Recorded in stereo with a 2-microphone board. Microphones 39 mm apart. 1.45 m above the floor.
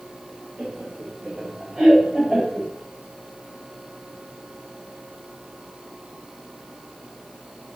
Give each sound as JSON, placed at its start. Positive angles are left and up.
{"t": 0.6, "sound": "laughter", "side_deg": -20, "distance_m": 4.5}